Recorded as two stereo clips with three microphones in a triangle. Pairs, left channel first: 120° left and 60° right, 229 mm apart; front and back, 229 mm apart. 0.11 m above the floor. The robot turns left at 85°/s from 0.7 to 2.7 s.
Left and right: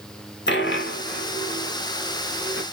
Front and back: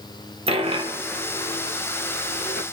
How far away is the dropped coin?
About 0.7 m.